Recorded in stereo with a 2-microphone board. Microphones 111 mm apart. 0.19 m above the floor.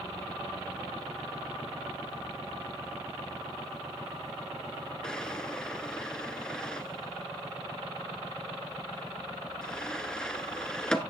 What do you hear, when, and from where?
5.0 s a drawer: 5° left (ahead or behind), 0.8 m